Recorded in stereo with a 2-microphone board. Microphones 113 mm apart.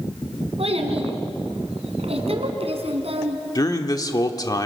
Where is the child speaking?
65° right (ahead or behind), 3 m.